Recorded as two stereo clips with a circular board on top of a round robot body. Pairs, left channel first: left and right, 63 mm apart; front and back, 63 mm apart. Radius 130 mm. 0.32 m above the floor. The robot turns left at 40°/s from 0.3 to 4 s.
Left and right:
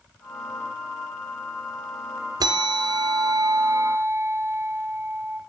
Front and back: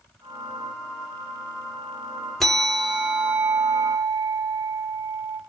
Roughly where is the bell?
Right.